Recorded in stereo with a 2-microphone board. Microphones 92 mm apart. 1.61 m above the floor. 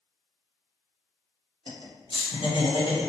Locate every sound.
1.7 s laughter: 65° left (ahead or behind), 1.0 m; by 3.1 s 55° left (ahead or behind), 1.2 m